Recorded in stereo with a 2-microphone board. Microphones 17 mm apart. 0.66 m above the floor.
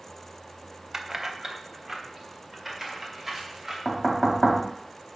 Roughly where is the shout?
I don't hear a shout.